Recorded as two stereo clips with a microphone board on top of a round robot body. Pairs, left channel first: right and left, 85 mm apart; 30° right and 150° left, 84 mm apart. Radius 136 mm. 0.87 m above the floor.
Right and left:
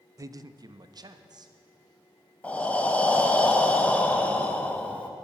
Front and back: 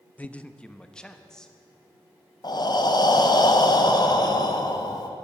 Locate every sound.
0.2 s a man speaking: 40° left, 0.6 m; by 1.5 s 55° left, 1.2 m
2.4 s breathing: 20° right, 1.4 m